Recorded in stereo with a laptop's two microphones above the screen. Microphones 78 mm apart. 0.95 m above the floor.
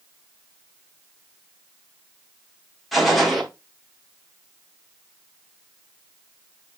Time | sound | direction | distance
2.9 | a gunshot | centre (ahead or behind) | 0.8 m